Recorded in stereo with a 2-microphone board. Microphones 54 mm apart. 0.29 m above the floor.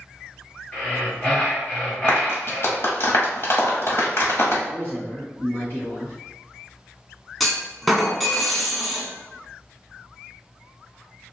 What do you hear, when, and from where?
0.7 s breathing: 20° left (ahead or behind), 1.9 m
2.1 s a clap: 50° left (ahead or behind), 1.2 m
4.7 s a man speaking: 40° left (ahead or behind), 1.3 m
7.4 s a clunk: centre (ahead or behind), 0.9 m